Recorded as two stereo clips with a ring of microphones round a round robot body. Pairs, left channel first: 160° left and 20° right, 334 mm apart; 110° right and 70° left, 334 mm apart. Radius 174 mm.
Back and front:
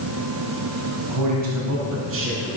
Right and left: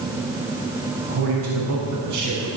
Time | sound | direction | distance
1.1 | a man speaking | 10° left | 4.5 m